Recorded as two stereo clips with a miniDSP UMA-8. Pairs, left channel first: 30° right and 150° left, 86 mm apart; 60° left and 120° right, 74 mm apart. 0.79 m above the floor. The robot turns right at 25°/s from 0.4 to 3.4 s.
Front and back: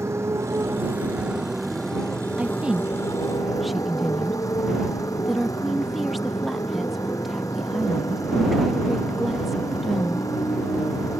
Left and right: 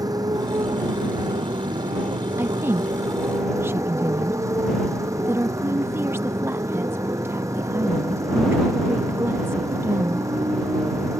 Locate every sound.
0.0 s a motorcycle: 155° right; by 11.2 s 80° right
2.4 s a woman speaking: 150° right; by 10.3 s 120° right